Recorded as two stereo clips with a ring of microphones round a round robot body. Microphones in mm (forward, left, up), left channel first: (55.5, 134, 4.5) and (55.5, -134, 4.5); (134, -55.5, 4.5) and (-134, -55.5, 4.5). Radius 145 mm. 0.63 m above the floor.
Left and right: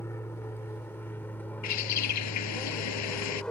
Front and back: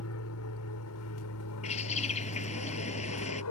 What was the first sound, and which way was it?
An aircraft, 10° left.